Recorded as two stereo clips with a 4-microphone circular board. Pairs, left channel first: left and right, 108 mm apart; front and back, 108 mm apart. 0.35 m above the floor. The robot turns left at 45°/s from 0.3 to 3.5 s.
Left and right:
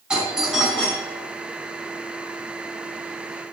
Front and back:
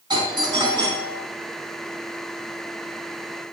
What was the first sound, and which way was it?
A doorbell, 170° right.